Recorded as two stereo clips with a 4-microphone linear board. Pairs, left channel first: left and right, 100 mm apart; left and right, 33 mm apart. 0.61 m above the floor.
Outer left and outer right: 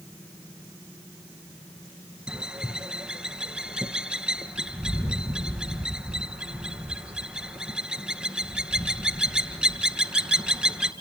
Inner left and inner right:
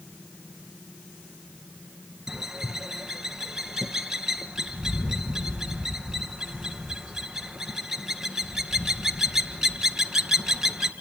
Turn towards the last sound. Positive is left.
turn(degrees=-10)  # may be behind; listen again after turning